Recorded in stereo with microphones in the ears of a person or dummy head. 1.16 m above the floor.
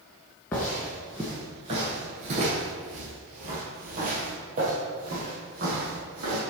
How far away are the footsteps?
About 1.1 m.